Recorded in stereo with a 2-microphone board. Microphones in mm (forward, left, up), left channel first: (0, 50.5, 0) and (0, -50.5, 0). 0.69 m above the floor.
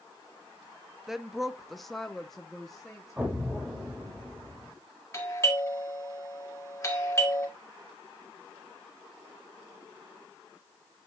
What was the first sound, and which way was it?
A woman speaking, 5° right (ahead or behind).